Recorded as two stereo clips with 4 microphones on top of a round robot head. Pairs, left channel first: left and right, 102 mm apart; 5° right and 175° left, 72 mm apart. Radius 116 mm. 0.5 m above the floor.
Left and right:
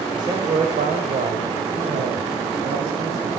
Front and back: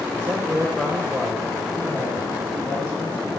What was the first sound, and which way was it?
A man speaking, 135° right.